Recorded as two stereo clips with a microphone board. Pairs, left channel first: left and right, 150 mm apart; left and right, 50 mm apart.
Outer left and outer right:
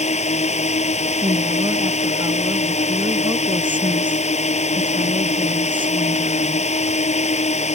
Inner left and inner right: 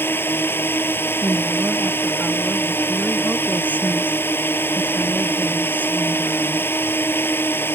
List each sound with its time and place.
0.0 s a drone: 50° left (ahead or behind)
1.2 s a woman speaking: 35° right (ahead or behind)